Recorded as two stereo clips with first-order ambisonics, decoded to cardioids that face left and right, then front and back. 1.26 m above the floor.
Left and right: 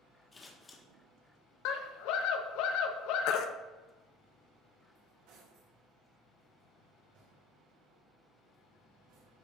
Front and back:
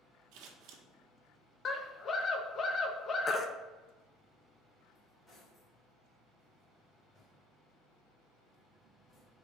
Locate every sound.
0.3 s scissors: 165° left, 1.6 m
1.6 s a scream: 65° left, 1.2 m
3.3 s a baby crying: 70° left, 0.6 m
5.0 s cutlery clinking: 75° right, 3 m